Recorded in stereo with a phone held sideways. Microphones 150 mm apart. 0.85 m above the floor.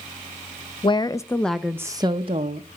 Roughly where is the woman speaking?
Left.